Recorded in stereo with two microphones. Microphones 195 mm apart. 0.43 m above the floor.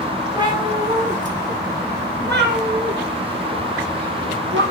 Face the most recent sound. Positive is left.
turn(degrees=-85)